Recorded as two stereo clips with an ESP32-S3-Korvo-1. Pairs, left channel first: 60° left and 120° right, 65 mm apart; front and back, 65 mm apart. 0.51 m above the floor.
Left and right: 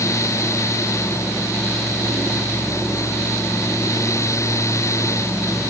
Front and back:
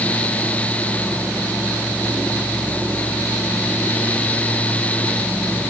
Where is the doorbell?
No doorbell in this recording.